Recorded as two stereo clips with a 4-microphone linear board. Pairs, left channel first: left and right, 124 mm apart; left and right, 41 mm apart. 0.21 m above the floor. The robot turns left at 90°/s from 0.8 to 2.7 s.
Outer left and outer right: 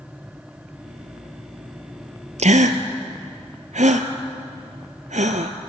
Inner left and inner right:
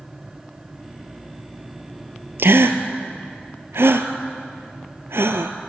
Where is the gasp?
65° right (ahead or behind), 1.2 m; by 5.5 s 80° right, 1.2 m.